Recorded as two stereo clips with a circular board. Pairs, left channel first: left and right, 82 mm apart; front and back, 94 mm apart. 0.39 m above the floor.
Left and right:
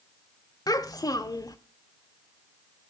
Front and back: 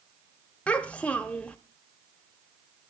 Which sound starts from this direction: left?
A child speaking, at 0.7 s.